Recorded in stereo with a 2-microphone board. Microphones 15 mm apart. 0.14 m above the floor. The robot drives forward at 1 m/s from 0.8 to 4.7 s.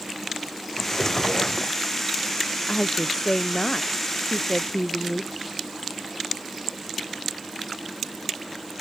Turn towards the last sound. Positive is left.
turn(degrees=50)  # may be behind; listen again after turning